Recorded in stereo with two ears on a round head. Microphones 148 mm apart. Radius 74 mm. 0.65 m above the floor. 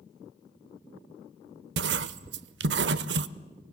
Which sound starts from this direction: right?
Writing, at 1.8 s.